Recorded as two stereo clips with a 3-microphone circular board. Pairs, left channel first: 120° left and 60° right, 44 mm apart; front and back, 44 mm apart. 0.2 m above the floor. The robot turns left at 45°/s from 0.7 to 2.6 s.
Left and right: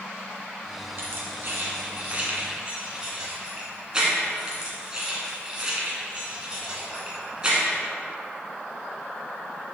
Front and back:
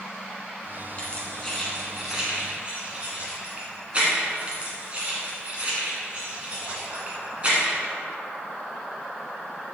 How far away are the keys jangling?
About 1.7 m.